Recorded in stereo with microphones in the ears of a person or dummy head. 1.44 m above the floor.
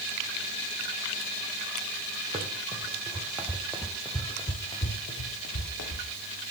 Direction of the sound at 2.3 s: 30° right (ahead or behind).